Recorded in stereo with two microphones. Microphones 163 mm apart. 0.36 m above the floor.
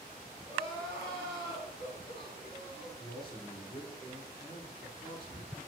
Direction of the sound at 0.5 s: 35° left (ahead or behind).